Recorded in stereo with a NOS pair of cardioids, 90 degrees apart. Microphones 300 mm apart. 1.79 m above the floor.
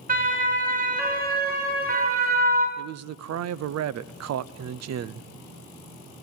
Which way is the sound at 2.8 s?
60° right.